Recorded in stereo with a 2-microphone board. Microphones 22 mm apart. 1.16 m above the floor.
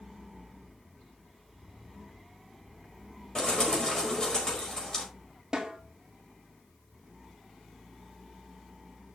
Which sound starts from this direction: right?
A snare drum, at 5.5 s.